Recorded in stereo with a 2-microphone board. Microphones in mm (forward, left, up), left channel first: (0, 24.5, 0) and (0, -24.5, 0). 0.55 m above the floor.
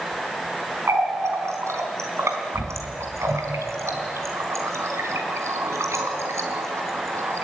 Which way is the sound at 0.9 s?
75° right (ahead or behind).